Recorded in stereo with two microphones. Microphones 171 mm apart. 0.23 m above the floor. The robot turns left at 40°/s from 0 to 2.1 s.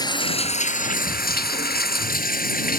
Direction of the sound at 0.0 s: 155° left.